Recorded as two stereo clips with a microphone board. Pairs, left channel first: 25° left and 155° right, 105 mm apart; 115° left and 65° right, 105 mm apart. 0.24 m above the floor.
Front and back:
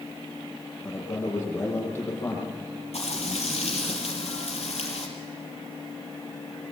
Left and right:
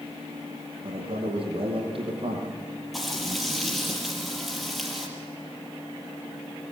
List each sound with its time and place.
0.8 s a man speaking: 40° right, 8.5 m; by 3.9 s 50° right, 9.5 m
2.9 s frying: 25° left, 5.5 m